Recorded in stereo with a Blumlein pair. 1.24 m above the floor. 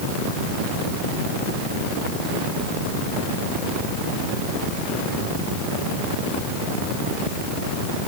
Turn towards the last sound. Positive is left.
No sound to turn to.